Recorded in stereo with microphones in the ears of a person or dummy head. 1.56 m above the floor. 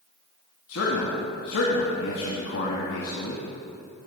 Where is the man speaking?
75° left (ahead or behind), 1.8 m.